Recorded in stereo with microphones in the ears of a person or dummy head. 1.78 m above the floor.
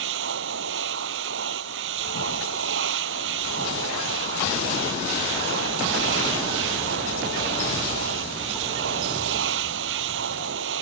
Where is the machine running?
75° right (ahead or behind).